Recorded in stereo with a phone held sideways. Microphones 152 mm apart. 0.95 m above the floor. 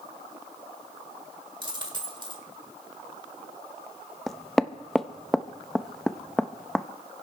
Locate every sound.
1.6 s a dropped coin: 30° right (ahead or behind), 1.6 m
4.3 s knocking: centre (ahead or behind), 0.7 m